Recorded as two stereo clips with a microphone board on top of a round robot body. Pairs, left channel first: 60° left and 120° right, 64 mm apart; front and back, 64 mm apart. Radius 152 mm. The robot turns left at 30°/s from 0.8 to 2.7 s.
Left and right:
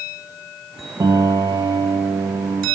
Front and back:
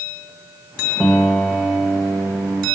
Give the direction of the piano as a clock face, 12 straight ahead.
3 o'clock.